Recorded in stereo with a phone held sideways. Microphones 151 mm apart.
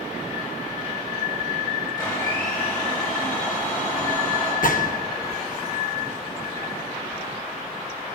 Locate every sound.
2.0 s a blender: 25° left (ahead or behind), 7 m
4.6 s a gunshot: 65° left (ahead or behind), 0.8 m